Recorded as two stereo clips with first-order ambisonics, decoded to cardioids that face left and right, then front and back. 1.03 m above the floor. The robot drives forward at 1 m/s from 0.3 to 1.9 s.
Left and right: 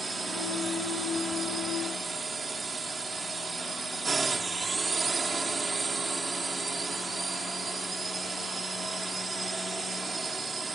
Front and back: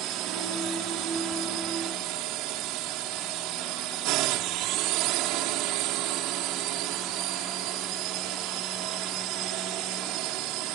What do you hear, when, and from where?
0.0 s a drone: 165° right